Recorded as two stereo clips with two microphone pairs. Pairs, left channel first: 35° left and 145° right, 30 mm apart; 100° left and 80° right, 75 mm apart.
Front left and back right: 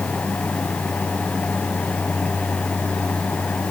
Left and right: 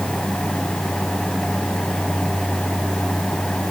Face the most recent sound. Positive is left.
No sound to turn to.